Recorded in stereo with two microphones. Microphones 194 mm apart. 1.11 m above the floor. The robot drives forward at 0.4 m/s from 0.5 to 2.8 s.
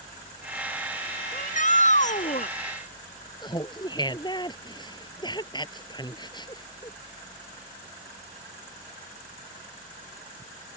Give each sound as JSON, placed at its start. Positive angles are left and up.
{"t": 1.3, "sound": "a shout", "side_deg": 40}
{"t": 3.4, "sound": "laughter", "side_deg": 20}